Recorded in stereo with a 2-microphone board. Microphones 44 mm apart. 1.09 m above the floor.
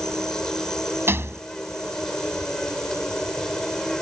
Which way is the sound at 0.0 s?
10° left (ahead or behind).